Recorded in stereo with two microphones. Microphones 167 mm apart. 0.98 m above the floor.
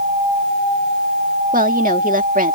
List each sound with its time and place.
1.5 s a woman speaking: 55° right (ahead or behind)